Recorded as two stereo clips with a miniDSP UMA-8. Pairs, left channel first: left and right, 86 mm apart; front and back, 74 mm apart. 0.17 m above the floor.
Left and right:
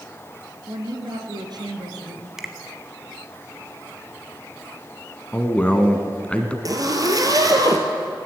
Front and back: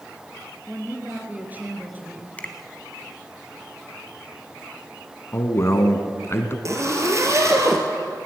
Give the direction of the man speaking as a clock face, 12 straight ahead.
11 o'clock.